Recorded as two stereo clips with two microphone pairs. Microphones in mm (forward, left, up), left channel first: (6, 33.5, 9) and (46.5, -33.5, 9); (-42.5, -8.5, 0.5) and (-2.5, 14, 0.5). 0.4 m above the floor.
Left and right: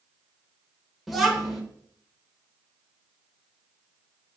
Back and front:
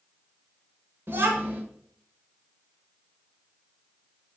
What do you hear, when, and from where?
1.1 s a child speaking: 30° left, 0.7 m